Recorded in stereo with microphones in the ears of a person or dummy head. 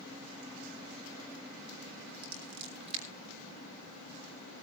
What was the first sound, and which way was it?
Scissors, 35° right (ahead or behind).